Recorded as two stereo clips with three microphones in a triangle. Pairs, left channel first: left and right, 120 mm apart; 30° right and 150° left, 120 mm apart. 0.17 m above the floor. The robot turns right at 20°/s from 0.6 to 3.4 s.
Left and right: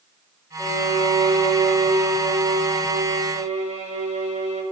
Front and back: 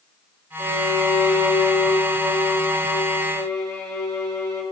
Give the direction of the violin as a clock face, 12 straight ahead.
5 o'clock.